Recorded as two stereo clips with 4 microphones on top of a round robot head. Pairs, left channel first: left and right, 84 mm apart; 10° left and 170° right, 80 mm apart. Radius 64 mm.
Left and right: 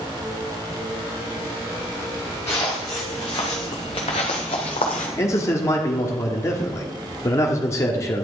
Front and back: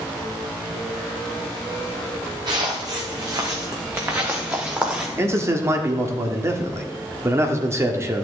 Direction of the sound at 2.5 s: 160° left.